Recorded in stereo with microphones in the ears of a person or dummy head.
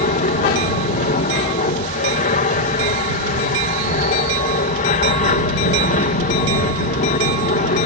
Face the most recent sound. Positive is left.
turn(degrees=40)  # may be behind; listen again after turning